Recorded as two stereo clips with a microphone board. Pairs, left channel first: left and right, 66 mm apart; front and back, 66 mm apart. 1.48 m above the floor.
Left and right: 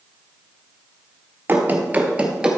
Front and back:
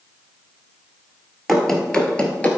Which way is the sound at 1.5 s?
85° right.